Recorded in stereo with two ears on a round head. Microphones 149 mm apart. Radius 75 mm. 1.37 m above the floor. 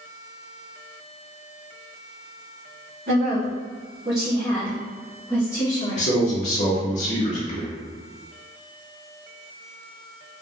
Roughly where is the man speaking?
Left.